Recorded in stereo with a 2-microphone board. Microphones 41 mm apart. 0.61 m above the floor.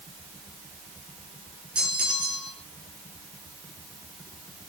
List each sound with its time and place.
1.8 s a bell: 25° right (ahead or behind), 3.5 m